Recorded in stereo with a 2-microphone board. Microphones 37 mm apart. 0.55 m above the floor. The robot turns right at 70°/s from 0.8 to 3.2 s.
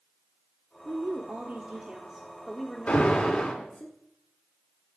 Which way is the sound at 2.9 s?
45° left (ahead or behind).